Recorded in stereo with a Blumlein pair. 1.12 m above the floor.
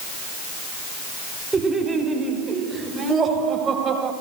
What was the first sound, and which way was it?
Laughter, 10° right.